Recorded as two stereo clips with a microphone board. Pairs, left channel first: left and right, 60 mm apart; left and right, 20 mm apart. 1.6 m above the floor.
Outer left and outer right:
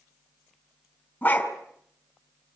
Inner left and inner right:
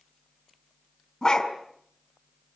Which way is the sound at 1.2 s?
25° left (ahead or behind).